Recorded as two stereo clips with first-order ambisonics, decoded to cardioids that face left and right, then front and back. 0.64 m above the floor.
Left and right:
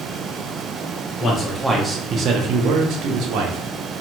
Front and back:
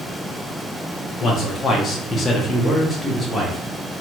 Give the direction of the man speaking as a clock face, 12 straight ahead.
11 o'clock.